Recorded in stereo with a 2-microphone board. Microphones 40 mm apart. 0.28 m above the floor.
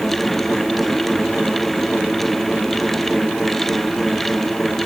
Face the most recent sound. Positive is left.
No sound to turn to.